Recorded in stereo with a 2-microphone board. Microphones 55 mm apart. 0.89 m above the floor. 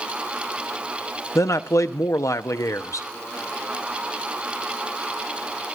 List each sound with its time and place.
1.4 s a man speaking: 70° left (ahead or behind), 0.8 m